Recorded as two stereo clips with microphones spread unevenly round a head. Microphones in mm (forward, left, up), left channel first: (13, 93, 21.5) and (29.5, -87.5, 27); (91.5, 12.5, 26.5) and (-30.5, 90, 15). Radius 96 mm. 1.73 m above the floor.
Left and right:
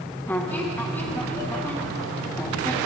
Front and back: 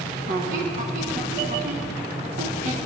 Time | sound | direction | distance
0.3 | a squeak | 175° left | 1.2 m